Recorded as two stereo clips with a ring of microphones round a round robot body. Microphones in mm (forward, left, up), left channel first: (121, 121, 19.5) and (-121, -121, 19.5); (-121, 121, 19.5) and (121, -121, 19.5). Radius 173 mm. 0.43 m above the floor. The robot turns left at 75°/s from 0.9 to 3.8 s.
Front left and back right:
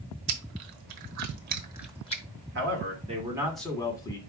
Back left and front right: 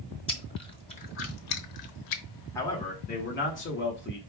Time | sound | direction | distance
0.3 | chewing | 150° right | 1.0 m
2.5 | a man speaking | 150° right | 1.5 m